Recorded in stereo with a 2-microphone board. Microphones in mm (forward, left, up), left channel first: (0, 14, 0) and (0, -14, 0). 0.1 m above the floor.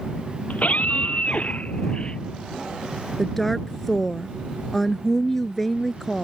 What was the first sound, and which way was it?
A scream, 65° left (ahead or behind).